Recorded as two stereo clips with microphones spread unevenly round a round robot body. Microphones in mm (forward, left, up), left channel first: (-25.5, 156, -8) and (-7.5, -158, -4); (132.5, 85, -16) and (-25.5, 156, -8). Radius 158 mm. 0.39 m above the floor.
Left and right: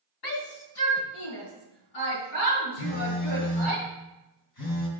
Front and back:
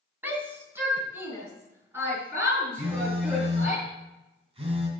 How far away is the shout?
About 2.5 m.